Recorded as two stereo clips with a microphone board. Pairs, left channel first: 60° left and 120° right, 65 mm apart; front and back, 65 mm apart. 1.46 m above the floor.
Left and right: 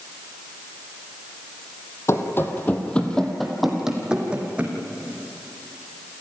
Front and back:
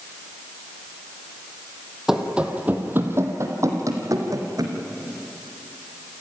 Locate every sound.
2.1 s running footsteps: 95° left, 2.5 m; by 4.8 s 170° left, 4 m